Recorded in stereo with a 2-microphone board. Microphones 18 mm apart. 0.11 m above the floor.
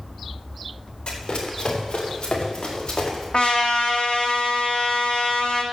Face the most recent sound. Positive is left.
turn(degrees=75)  # may be behind; listen again after turning